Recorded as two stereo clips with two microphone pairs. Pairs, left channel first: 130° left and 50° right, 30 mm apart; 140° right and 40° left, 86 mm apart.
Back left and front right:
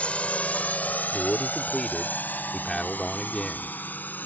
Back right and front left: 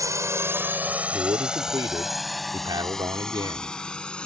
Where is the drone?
85° left; by 4.3 s 140° left.